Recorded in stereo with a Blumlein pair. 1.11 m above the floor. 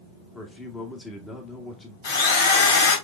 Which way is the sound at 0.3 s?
10° left.